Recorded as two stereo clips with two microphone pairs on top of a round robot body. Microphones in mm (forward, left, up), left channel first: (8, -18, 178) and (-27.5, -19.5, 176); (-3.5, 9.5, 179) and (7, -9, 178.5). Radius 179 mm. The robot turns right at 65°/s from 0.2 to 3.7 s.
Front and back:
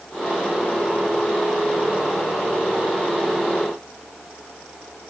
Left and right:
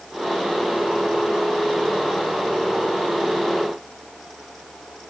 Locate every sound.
Only background noise.